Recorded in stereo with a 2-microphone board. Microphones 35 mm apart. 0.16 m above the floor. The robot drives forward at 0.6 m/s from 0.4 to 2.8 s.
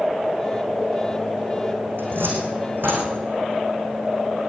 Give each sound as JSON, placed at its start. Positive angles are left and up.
{"t": 2.0, "sound": "a cupboard door", "side_deg": -80, "distance_m": 5.5}